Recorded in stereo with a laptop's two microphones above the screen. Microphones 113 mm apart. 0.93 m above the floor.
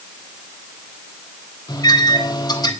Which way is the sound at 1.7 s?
35° left (ahead or behind).